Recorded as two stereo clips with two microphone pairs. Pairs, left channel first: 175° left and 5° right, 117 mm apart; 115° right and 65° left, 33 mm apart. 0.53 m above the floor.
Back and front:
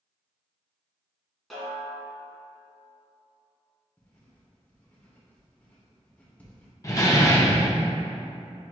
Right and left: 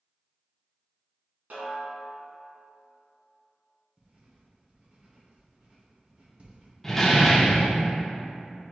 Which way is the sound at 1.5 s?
90° left.